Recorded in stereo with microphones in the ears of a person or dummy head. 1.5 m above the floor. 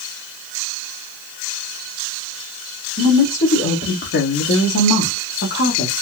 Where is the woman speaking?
35° left (ahead or behind), 1.2 m; by 5.9 s 60° left (ahead or behind), 1.2 m.